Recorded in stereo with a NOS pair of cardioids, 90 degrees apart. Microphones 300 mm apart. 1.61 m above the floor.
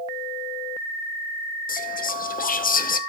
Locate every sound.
1.7 s whispering: 30° left, 0.9 m